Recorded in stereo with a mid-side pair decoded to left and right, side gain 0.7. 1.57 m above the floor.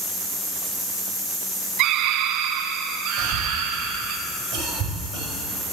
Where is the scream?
60° right, 0.8 m.